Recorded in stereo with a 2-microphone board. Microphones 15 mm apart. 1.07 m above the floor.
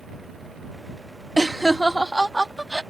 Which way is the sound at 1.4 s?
25° left (ahead or behind).